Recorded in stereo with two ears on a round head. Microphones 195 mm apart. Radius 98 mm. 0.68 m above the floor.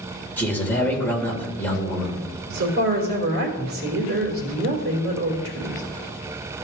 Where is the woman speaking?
50° right (ahead or behind), 3 m.